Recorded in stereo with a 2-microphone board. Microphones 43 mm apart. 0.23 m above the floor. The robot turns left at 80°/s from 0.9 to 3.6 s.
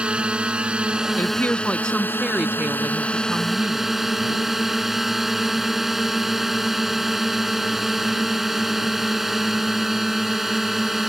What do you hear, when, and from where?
0.0 s a drone: 150° right; by 11.1 s 5° right
1.2 s a woman speaking: 80° left; by 4.0 s 115° right